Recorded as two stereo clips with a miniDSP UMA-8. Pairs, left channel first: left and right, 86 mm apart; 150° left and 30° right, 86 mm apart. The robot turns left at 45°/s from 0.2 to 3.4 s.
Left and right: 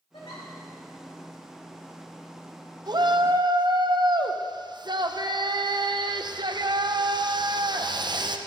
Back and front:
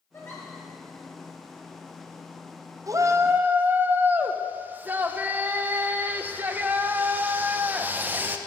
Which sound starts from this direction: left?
A giggle, at 0.1 s.